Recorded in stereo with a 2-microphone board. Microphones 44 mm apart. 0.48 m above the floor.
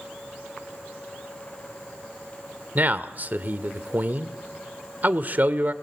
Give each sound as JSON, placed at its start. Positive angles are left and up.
{"t": 2.8, "sound": "a man speaking", "side_deg": -45, "distance_m": 1.2}